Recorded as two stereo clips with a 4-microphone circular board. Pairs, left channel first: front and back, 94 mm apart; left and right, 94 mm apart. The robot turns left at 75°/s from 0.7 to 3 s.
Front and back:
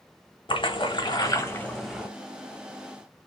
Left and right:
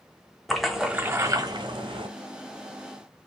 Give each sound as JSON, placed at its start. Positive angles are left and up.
{"t": 0.5, "sound": "a splash", "azimuth_deg": 0, "distance_m": 1.0}